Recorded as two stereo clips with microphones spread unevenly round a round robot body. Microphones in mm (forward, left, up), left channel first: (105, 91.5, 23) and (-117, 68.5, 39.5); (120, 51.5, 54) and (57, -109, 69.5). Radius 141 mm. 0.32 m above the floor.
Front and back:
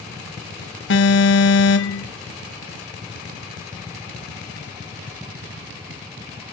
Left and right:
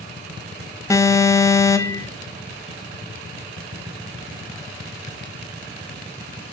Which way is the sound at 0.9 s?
Straight ahead.